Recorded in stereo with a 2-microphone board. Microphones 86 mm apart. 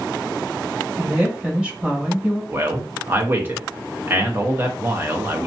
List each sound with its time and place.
1.0 s a woman speaking: 15° right (ahead or behind), 1.8 m
2.5 s a man speaking: 25° right (ahead or behind), 1.0 m